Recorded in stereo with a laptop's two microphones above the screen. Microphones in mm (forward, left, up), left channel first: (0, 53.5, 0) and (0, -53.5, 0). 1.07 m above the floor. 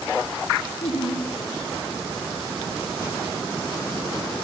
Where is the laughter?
75° left (ahead or behind), 7.5 m.